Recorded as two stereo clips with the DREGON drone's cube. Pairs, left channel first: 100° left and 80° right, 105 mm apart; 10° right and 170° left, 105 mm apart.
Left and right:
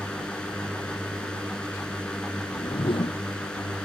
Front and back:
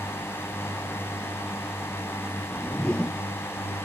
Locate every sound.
0.0 s a drone: 30° left
2.4 s a whoosh: 70° left